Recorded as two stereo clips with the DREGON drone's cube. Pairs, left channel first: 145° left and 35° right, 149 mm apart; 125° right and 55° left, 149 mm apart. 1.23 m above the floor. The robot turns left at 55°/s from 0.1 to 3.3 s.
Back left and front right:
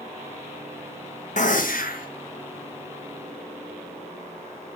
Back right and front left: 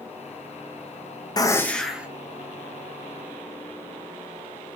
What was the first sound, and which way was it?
A gunshot, 175° left.